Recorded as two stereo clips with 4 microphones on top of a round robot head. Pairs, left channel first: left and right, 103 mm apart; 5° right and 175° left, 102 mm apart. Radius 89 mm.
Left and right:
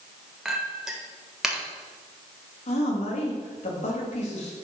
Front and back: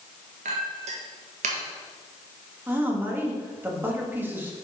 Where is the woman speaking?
105° left, 2 m.